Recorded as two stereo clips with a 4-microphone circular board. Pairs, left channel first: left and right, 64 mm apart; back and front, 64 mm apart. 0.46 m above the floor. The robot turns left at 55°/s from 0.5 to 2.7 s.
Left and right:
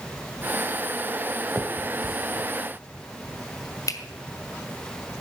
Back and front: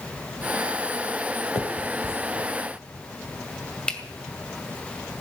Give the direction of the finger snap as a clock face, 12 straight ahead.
6 o'clock.